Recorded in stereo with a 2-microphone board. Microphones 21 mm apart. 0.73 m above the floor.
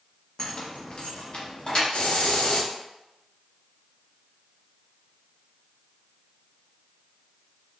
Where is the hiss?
60° left (ahead or behind), 0.5 m.